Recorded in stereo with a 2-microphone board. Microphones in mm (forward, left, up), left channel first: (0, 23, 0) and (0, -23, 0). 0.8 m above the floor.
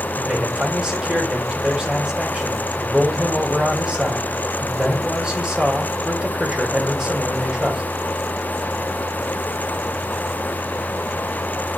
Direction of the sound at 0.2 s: 15° right (ahead or behind).